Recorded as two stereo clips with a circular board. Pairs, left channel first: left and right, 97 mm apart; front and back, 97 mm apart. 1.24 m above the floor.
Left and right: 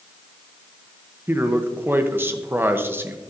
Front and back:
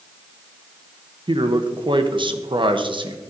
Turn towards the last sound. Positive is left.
turn(degrees=-155)